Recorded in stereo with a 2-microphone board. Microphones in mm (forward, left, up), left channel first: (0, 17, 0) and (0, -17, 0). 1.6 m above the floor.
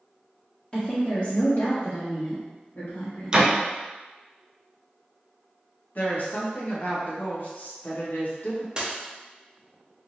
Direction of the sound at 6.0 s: 55° left (ahead or behind).